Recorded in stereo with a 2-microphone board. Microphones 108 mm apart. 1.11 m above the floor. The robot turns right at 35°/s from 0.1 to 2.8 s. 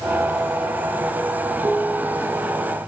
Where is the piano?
105° right, 5.5 m; by 2.8 s 65° right, 5.5 m.